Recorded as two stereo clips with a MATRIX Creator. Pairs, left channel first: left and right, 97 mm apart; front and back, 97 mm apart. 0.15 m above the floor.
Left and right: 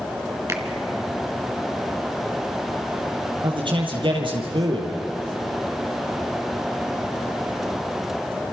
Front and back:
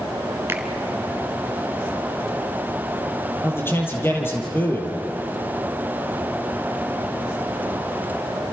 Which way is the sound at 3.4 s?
65° right.